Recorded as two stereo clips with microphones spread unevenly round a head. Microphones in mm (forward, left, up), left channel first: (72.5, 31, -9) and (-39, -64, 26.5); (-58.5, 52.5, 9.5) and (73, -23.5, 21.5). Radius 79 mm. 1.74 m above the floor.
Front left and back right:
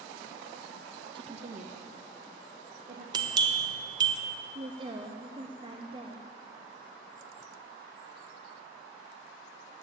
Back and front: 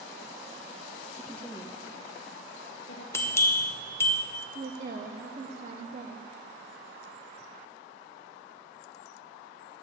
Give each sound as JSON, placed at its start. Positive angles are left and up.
{"t": 1.1, "sound": "a woman speaking", "azimuth_deg": -105, "distance_m": 0.6}
{"t": 3.1, "sound": "a bell", "azimuth_deg": -135, "distance_m": 0.9}
{"t": 4.5, "sound": "a woman speaking", "azimuth_deg": -80, "distance_m": 0.7}